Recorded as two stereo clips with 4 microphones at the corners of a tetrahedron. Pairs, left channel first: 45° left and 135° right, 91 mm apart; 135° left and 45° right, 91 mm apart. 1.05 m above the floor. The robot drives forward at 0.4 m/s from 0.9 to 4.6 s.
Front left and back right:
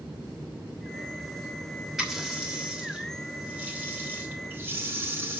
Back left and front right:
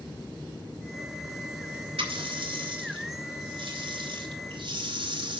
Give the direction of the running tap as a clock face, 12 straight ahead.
2 o'clock.